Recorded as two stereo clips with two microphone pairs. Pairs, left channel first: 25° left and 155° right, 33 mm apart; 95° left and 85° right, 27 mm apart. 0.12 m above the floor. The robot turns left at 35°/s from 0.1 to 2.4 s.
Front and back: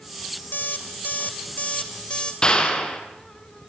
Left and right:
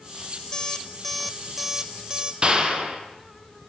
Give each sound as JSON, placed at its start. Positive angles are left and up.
{"t": 0.5, "sound": "an alarm clock", "azimuth_deg": 30, "distance_m": 2.0}
{"t": 2.4, "sound": "a clap", "azimuth_deg": -40, "distance_m": 4.0}